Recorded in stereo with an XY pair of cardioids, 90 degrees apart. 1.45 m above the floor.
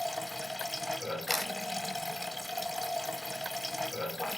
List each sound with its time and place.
0.0 s running water: 5° left, 0.8 m
1.3 s a camera shutter: 15° left, 0.8 m